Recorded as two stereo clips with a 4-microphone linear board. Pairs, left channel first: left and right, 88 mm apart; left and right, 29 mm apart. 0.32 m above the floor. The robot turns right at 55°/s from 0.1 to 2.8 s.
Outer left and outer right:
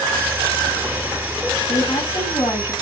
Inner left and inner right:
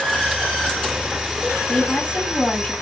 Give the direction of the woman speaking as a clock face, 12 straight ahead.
10 o'clock.